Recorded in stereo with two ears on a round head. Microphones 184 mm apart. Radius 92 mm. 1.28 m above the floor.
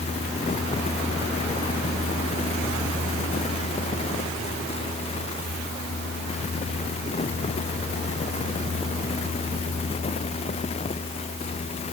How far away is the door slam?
No door slam in this recording.